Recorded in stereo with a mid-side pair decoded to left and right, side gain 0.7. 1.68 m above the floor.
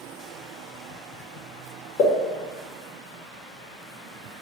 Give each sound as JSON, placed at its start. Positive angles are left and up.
{"t": 2.0, "sound": "a pop", "azimuth_deg": 60, "distance_m": 2.5}